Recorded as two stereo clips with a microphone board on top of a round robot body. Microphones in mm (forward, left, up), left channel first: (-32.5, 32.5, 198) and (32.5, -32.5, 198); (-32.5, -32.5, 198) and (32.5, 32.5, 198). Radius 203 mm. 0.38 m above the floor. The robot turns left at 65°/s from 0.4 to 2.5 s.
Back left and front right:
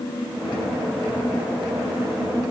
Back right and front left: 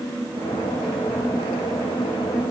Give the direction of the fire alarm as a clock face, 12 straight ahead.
No fire alarm in this recording.